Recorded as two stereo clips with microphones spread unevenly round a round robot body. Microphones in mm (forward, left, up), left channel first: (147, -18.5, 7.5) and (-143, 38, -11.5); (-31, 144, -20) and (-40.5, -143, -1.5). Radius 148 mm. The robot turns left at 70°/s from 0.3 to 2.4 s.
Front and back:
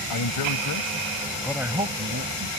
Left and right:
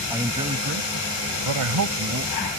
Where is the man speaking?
10° right; by 2.5 s 160° right.